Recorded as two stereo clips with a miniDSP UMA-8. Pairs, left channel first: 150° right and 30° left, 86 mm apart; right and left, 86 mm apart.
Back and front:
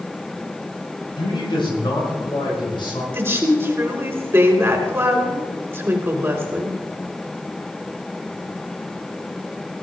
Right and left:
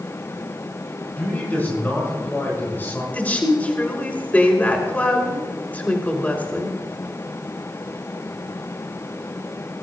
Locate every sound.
1.2 s a man speaking: 160° right, 6 m; by 3.0 s 155° right, 5 m
3.1 s a woman speaking: 25° right, 2 m